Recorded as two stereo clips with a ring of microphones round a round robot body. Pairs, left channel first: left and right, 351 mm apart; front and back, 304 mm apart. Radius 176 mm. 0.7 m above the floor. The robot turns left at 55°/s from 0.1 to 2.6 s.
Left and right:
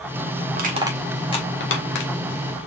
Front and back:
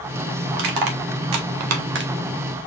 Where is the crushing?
150° right, 1.3 m; by 2.1 s 120° left, 1.3 m.